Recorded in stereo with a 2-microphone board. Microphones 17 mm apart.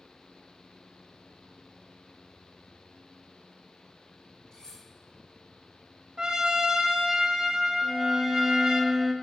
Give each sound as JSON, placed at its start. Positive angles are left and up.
{"t": 4.5, "sound": "cutlery clinking", "side_deg": 45, "distance_m": 4.0}
{"t": 6.2, "sound": "a trumpet", "side_deg": -50, "distance_m": 1.0}
{"t": 7.8, "sound": "a violin", "side_deg": -10, "distance_m": 0.8}